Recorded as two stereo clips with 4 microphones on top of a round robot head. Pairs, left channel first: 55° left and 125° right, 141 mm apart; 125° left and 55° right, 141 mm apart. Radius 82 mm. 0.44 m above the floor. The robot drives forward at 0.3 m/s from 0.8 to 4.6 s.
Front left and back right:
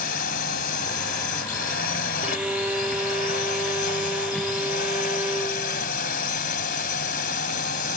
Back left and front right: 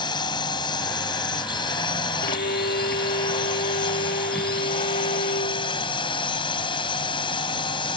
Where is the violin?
150° left.